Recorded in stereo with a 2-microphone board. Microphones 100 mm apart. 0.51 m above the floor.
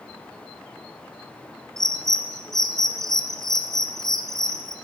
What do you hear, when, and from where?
1.8 s a bird: 5° left (ahead or behind), 1.0 m